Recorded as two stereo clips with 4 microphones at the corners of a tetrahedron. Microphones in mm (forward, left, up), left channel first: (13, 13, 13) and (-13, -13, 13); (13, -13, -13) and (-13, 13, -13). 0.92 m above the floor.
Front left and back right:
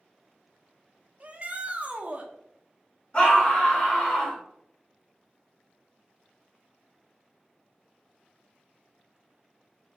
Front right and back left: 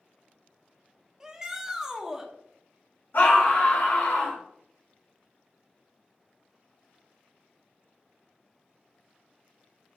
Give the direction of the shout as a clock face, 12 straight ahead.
5 o'clock.